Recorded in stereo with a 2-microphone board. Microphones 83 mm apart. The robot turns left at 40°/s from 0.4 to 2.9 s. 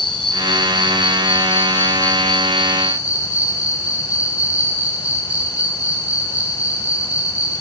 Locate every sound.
0.0 s an insect: 85° left, 2.0 m; by 7.6 s 15° right, 2.0 m